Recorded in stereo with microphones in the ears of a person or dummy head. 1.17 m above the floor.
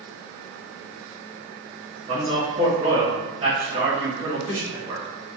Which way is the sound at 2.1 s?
30° right (ahead or behind).